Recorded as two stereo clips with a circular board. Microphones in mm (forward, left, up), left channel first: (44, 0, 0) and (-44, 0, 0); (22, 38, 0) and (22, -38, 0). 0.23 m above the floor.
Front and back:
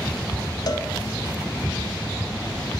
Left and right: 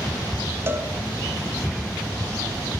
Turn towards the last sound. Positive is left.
turn(degrees=-35)